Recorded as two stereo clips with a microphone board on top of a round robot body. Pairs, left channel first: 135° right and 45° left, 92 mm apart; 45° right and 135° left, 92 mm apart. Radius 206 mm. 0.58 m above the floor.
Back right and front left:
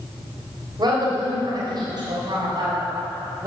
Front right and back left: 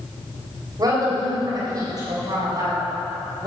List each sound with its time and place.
0.8 s a woman speaking: 85° left, 3.5 m